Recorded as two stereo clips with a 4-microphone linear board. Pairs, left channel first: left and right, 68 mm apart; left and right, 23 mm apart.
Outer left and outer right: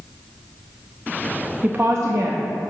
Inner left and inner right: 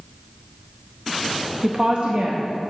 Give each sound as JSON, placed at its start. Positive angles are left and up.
{"t": 1.6, "sound": "a woman speaking", "side_deg": -20, "distance_m": 0.6}